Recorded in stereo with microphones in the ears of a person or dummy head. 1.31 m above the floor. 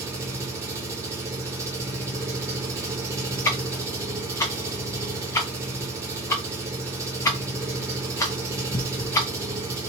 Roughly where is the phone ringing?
No phone ringing in this recording.